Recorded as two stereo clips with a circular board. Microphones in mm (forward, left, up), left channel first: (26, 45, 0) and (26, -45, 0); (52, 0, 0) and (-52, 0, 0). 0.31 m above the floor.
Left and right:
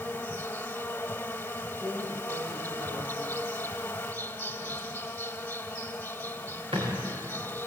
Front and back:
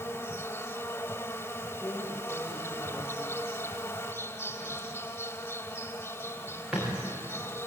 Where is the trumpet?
I don't hear a trumpet.